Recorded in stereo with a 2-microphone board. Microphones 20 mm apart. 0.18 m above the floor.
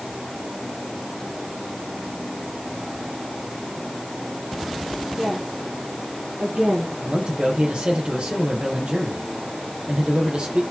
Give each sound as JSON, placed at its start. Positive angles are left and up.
{"t": 5.2, "sound": "a woman speaking", "side_deg": -70, "distance_m": 9.0}
{"t": 7.0, "sound": "a man speaking", "side_deg": -60, "distance_m": 5.5}